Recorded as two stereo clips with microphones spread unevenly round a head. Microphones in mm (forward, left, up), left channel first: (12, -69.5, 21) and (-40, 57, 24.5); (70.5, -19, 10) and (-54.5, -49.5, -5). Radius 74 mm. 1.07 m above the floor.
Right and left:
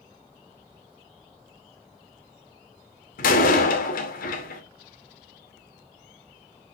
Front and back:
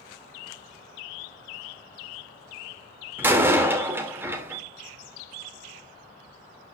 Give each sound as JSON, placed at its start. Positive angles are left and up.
{"t": 3.2, "sound": "a door slam", "azimuth_deg": -90, "distance_m": 2.5}